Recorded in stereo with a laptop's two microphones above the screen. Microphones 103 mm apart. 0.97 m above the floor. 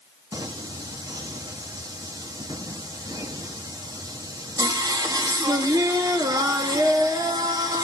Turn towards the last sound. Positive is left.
turn(degrees=-40)  # may be behind; listen again after turning